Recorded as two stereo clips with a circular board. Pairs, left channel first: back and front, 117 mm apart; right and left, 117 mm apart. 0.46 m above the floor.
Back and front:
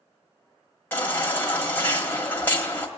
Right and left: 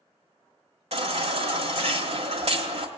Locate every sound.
0.9 s a baby crying: 110° left, 1.5 m